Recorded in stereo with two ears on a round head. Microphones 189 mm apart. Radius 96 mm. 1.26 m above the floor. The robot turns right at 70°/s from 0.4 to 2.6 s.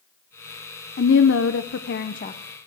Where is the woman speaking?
50° left, 0.7 m; by 2.4 s 150° left, 0.7 m.